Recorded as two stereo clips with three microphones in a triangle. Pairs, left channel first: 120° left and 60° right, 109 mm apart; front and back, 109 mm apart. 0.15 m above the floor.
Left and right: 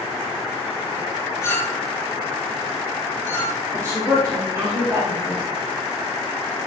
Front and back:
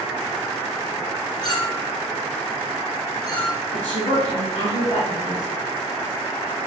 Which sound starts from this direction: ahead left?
A clink, at 1.4 s.